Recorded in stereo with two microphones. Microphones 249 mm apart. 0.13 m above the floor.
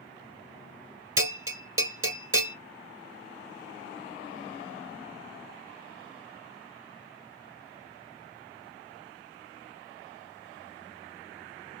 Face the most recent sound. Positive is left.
turn(degrees=-55)  # may be behind; listen again after turning